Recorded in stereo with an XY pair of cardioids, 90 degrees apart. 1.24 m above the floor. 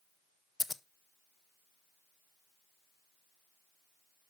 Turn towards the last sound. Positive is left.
turn(degrees=30)